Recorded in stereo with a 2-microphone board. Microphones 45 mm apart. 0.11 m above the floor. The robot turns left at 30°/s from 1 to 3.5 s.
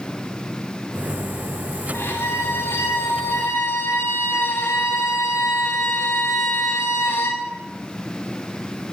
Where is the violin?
115° left, 6 m; by 7.5 s 70° left, 6 m.